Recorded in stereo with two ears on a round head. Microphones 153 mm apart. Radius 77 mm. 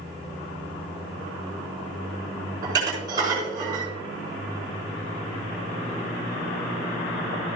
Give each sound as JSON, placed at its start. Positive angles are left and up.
{"t": 2.6, "sound": "dishes clattering", "side_deg": -25, "distance_m": 5.0}